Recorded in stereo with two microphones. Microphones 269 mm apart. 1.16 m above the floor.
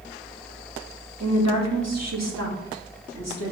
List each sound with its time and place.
1.2 s a woman speaking: 70° right (ahead or behind), 1.4 m